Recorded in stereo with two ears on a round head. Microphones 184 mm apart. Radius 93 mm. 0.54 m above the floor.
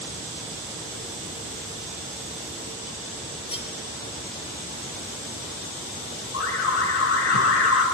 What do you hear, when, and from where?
3.5 s cutlery clinking: 30° left (ahead or behind), 5 m
6.3 s an alarm: 75° left (ahead or behind), 4.5 m